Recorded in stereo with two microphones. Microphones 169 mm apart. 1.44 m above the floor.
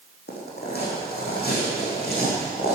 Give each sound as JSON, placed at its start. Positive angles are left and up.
{"t": 0.3, "sound": "footsteps", "side_deg": 70, "distance_m": 4.5}